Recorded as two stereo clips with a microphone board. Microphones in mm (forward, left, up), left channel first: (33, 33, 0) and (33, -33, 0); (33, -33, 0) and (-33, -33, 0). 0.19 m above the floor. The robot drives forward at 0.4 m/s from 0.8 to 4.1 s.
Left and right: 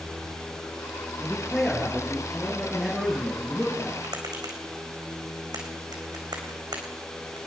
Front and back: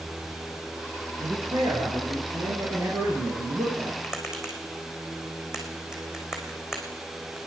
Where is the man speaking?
175° left, 3.5 m.